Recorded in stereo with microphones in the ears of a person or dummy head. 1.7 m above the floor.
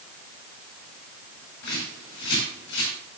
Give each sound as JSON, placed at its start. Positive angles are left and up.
{"t": 1.6, "sound": "a bird", "side_deg": 70, "distance_m": 5.5}